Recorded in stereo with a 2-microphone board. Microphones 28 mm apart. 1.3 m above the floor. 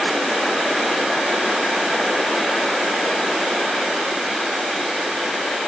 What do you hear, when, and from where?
Only background noise.